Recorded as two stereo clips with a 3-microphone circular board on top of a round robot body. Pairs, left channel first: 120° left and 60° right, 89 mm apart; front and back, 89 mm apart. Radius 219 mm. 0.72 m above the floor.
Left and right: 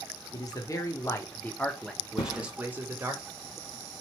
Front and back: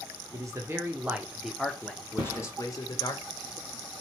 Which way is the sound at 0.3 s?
145° left.